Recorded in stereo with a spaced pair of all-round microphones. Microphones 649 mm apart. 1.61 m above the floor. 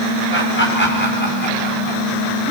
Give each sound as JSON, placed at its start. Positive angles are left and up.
{"t": 0.3, "sound": "laughter", "side_deg": 20, "distance_m": 7.0}